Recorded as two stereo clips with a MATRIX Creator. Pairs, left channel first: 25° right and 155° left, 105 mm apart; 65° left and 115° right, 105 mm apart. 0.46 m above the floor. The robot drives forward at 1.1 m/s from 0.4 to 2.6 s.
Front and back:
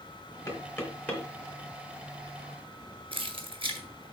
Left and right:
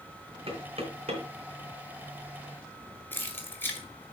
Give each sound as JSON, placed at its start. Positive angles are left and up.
{"t": 0.5, "sound": "knocking", "azimuth_deg": -85, "distance_m": 3.0}
{"t": 3.1, "sound": "keys jangling", "azimuth_deg": 135, "distance_m": 1.6}